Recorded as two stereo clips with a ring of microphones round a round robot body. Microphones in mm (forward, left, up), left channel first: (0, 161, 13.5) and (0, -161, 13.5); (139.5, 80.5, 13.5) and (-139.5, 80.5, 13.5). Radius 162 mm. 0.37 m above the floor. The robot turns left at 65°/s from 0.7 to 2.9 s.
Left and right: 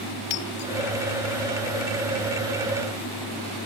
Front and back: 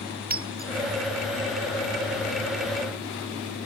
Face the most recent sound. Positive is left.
turn(degrees=-20)